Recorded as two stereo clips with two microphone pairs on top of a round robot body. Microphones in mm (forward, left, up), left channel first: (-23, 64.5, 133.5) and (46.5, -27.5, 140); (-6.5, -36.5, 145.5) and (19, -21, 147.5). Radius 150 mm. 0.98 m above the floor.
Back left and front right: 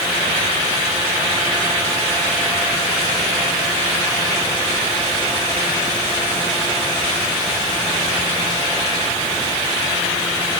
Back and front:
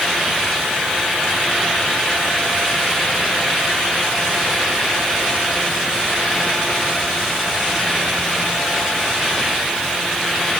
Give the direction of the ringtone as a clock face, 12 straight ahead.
I don't hear a ringtone.